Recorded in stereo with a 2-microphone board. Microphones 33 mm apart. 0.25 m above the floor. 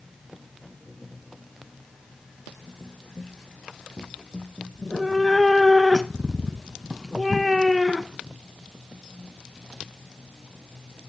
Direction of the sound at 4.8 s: 5° left (ahead or behind).